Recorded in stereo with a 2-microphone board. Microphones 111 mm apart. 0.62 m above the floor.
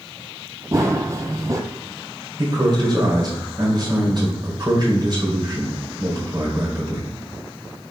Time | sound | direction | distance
0.7 | running footsteps | 35° right (ahead or behind) | 0.8 m
2.4 | a man speaking | 45° right (ahead or behind) | 2.5 m